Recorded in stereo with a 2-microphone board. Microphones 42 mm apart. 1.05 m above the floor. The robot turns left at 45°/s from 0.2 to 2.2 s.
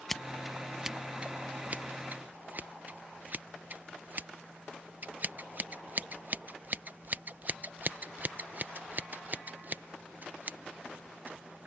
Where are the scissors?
5° left (ahead or behind); by 11.7 s 40° right (ahead or behind).